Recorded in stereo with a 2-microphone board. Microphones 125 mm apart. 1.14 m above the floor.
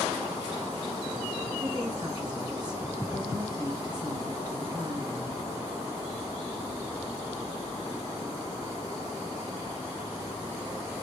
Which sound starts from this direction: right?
A woman speaking, at 1.6 s.